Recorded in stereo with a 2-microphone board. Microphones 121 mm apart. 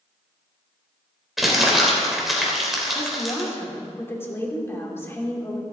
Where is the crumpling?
Centre (ahead or behind), 3 m.